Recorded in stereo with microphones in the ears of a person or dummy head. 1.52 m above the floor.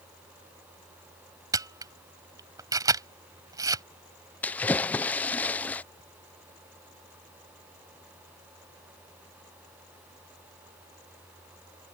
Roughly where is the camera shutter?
Centre.